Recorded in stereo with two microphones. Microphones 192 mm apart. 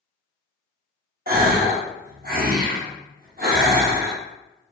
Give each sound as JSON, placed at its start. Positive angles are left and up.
{"t": 1.3, "sound": "a gasp", "side_deg": -50, "distance_m": 0.7}